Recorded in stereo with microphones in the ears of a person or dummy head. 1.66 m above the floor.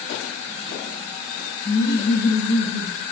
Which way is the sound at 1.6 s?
55° right (ahead or behind).